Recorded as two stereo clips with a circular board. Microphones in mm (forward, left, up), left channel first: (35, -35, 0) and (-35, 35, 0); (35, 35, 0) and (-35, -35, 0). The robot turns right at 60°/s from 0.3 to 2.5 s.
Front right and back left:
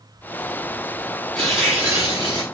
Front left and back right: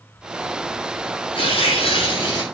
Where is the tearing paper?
35° left, 6 m; by 2.4 s 100° left, 6 m.